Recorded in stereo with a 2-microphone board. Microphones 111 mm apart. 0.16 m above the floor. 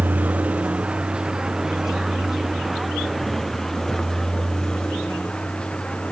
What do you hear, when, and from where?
0.0 s a vehicle: 15° right (ahead or behind); by 6.1 s 10° left (ahead or behind)